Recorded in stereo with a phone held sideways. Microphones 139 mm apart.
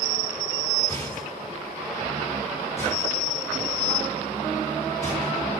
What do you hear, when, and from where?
0.9 s a rattle: 15° left (ahead or behind), 6.5 m